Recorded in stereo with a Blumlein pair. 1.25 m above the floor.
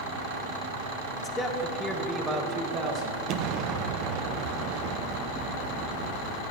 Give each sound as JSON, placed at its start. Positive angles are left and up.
{"t": 1.2, "sound": "a man speaking", "azimuth_deg": 25, "distance_m": 1.4}
{"t": 3.3, "sound": "an explosion", "azimuth_deg": -40, "distance_m": 0.7}